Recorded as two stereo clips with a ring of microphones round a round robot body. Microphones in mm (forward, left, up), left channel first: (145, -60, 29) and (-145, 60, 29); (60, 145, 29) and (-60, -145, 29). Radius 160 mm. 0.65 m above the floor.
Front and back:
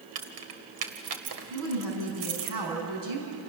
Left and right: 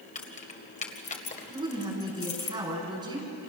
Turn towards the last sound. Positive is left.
turn(degrees=170)